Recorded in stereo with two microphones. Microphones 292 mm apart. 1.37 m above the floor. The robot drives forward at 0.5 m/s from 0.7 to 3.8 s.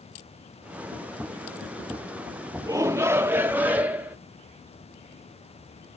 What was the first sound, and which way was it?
A shout, 10° right (ahead or behind).